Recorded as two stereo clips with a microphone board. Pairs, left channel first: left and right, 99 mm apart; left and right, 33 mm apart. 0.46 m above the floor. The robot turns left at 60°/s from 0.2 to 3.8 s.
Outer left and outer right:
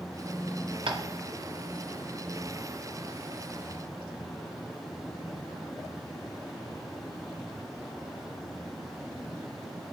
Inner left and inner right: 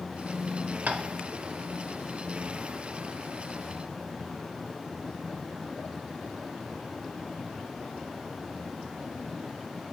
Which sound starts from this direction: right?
Tapping, at 0.9 s.